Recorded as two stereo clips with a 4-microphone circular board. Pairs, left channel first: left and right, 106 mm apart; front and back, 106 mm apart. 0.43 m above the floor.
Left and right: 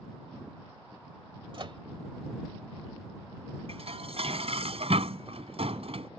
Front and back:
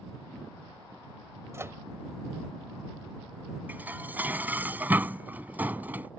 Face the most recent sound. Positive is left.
turn(degrees=-105)